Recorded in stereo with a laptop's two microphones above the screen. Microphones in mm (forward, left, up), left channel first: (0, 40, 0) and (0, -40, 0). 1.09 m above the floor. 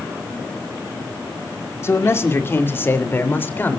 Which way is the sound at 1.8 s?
35° left (ahead or behind).